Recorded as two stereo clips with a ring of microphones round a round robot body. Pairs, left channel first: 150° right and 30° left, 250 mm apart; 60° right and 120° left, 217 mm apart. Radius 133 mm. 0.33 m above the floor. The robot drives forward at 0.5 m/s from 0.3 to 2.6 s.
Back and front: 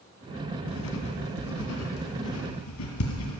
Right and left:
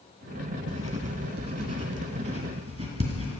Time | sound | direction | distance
0.7 | writing | straight behind | 1.2 m